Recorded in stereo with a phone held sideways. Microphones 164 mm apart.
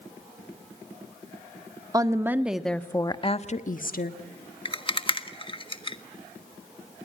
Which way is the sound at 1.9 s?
25° right (ahead or behind).